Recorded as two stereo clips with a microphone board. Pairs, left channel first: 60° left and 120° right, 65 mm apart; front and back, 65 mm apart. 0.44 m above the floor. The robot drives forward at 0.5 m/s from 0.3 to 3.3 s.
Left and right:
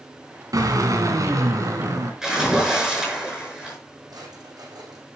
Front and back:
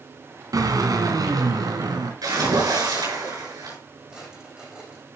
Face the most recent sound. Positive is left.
turn(degrees=-100)